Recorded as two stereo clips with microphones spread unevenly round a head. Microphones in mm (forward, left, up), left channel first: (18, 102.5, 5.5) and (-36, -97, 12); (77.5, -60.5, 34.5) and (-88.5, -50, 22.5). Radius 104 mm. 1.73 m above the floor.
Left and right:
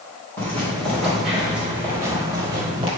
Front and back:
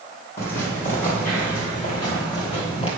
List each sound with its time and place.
0.4 s footsteps: 5° right, 3 m; by 2.9 s 45° right, 3 m